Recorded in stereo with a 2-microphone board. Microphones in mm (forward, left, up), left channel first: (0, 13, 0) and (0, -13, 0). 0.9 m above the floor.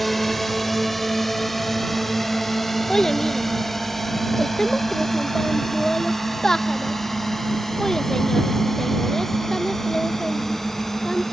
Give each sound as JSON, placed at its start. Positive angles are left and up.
{"t": 0.0, "sound": "a drone", "side_deg": 5}
{"t": 2.9, "sound": "a child speaking", "side_deg": 20}